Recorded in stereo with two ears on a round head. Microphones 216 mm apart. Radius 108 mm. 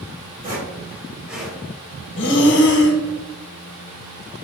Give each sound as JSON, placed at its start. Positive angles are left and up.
{"t": 0.4, "sound": "footsteps", "side_deg": -40, "distance_m": 1.9}
{"t": 2.2, "sound": "breathing", "side_deg": 50, "distance_m": 0.7}